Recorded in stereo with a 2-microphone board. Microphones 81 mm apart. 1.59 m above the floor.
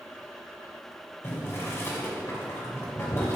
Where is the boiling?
35° left (ahead or behind), 2.5 m.